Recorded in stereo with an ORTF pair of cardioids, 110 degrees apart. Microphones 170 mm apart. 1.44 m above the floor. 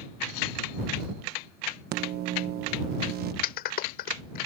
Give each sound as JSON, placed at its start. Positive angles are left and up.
{"t": 1.9, "sound": "a microwave", "azimuth_deg": -65}
{"t": 3.4, "sound": "a clap", "azimuth_deg": 65}